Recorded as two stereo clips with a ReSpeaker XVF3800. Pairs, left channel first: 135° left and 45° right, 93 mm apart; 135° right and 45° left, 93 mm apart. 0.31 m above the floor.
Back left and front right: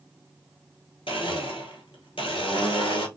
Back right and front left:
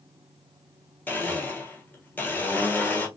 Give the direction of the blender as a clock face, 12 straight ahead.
7 o'clock.